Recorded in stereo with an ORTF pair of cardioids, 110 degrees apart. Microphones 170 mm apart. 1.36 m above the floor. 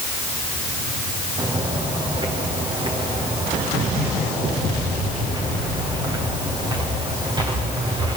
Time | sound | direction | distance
1.4 | footsteps | 25° right | 5.5 m